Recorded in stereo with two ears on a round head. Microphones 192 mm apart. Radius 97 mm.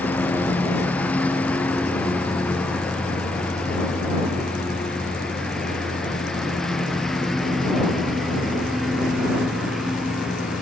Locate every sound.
0.0 s a lawn mower: 5° left (ahead or behind); by 10.6 s centre (ahead or behind)